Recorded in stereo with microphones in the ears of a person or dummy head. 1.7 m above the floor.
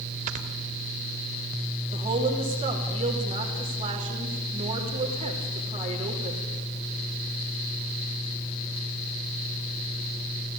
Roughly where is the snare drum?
No snare drum in this recording.